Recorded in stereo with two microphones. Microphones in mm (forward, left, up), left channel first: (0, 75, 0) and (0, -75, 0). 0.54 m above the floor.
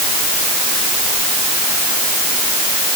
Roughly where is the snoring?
No snoring in this recording.